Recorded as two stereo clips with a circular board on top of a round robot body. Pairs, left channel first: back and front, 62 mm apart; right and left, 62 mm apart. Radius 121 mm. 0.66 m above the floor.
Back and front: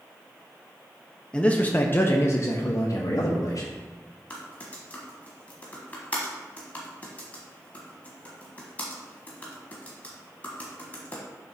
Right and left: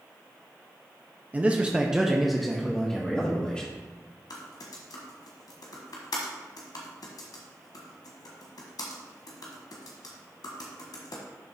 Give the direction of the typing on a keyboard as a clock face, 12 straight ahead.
4 o'clock.